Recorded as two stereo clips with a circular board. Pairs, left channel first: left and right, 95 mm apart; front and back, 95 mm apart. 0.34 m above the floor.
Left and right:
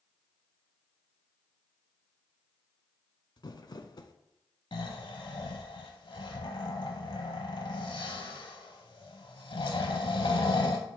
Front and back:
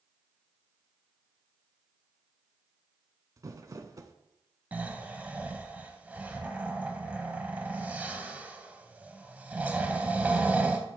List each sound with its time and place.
3.4 s crumpling: 130° left, 0.6 m
4.7 s snoring: 110° left, 0.8 m